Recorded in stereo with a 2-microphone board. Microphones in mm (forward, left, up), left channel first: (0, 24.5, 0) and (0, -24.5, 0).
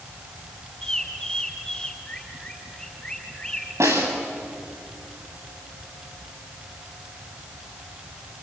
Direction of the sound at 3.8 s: 85° right.